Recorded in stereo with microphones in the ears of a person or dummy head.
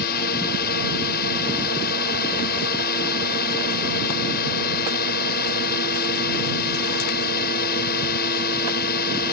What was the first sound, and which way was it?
A drone, 50° left (ahead or behind).